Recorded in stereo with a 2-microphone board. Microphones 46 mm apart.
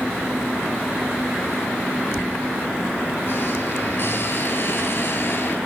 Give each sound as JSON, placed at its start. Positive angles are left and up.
{"t": 2.1, "sound": "a squeak", "side_deg": 50, "distance_m": 3.0}